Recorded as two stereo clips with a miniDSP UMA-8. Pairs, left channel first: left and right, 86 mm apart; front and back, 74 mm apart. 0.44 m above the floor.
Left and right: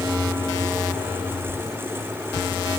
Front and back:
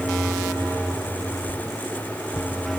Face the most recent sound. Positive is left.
turn(degrees=30)